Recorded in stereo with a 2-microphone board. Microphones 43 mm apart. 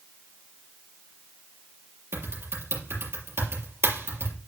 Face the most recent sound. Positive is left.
turn(degrees=-70)  # may be behind; listen again after turning